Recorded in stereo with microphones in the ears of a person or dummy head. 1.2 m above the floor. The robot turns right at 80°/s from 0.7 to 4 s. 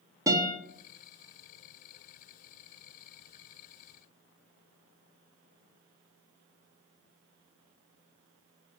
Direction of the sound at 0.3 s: 20° right (ahead or behind).